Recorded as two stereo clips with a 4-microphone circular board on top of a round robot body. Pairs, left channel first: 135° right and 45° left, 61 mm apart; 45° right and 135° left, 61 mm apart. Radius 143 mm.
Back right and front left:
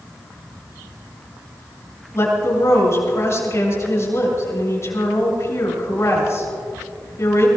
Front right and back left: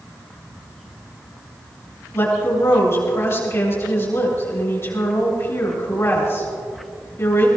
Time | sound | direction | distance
2.1 | a woman speaking | 95° right | 7.5 m